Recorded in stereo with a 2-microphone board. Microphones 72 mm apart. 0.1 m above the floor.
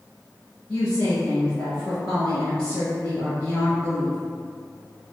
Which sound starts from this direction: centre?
A woman speaking, at 0.7 s.